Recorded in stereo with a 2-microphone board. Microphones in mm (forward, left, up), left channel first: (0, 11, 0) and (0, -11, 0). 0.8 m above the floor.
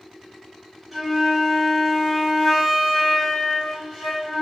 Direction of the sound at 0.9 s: 15° right (ahead or behind).